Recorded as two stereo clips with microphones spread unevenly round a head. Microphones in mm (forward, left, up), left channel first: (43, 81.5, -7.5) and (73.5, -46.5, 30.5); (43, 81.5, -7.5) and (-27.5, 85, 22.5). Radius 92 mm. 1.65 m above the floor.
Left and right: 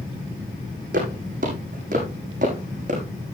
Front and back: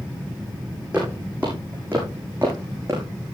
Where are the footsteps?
105° right, 6 m; by 3.0 s 115° right, 6 m.